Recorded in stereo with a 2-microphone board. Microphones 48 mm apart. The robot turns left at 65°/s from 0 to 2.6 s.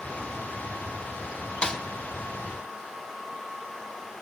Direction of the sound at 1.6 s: 20° left (ahead or behind).